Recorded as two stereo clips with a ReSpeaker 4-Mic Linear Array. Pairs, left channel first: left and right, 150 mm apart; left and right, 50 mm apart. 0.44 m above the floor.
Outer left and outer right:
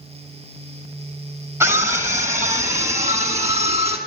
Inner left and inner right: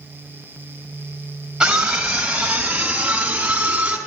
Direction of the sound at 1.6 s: 20° right (ahead or behind).